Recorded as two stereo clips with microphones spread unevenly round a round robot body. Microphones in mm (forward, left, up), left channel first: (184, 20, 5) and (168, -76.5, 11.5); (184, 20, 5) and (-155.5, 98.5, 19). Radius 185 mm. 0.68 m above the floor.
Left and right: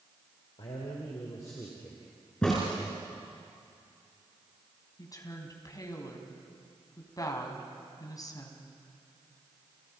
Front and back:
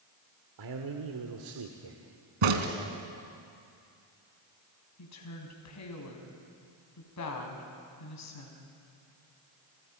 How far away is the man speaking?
About 2 m.